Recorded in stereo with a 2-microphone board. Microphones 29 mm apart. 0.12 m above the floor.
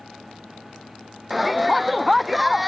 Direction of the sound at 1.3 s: 5° right (ahead or behind).